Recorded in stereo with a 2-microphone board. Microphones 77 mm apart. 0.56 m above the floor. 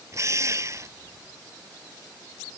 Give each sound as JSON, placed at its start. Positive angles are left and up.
{"t": 0.1, "sound": "a drill", "side_deg": -40}